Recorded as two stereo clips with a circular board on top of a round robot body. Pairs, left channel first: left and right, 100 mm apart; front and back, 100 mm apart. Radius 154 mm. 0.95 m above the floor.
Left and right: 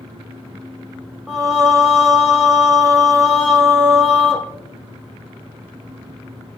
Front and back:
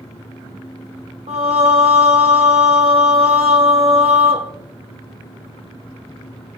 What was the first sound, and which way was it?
Singing, 175° right.